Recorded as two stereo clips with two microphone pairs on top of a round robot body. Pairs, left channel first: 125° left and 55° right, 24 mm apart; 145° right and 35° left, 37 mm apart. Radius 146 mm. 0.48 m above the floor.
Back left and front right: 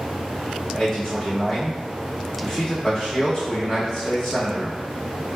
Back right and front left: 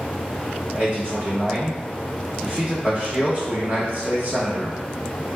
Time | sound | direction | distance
0.7 | a man speaking | 60° left | 1.7 m